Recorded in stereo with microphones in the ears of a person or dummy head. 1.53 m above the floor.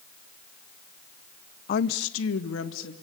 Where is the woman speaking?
40° left (ahead or behind), 0.8 m; by 2.9 s 85° left, 2.5 m.